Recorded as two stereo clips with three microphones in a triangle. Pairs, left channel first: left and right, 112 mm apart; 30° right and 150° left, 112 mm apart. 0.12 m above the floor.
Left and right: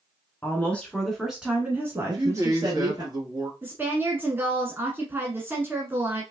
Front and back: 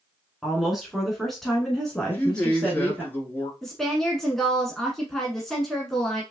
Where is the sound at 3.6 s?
110° right, 1.1 m.